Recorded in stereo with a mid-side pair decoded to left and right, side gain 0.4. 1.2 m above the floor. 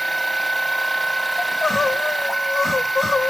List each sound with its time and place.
0.0 s a machine running: 5° right, 1.1 m
1.4 s crying: 35° left, 1.5 m